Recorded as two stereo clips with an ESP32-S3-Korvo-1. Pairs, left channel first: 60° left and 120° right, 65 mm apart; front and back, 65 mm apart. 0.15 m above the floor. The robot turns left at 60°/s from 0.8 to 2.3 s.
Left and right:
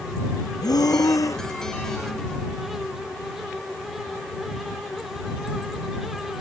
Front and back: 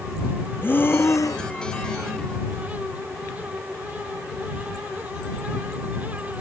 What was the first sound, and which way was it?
Breathing, 55° left.